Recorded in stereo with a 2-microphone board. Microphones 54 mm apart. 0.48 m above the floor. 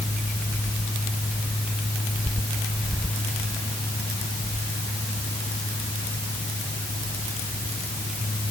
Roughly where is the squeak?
No squeak in this recording.